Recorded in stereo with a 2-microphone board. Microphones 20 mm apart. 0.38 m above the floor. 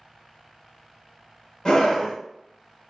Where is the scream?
30° left (ahead or behind), 0.9 m.